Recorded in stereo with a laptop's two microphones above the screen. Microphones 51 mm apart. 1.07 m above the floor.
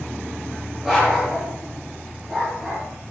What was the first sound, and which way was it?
A dog barking, 10° right (ahead or behind).